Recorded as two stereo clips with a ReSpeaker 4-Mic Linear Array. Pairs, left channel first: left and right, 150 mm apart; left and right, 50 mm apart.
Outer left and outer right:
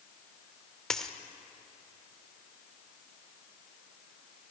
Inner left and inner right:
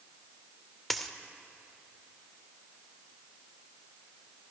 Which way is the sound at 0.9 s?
5° left (ahead or behind).